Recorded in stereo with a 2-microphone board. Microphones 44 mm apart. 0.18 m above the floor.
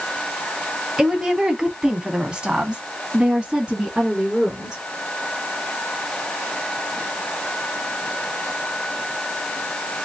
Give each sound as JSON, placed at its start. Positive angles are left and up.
{"t": 1.0, "sound": "a woman speaking", "side_deg": -10, "distance_m": 1.3}